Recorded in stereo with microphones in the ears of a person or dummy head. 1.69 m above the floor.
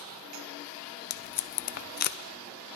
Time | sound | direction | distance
1.1 | tape being pulled | 55° left (ahead or behind) | 0.6 m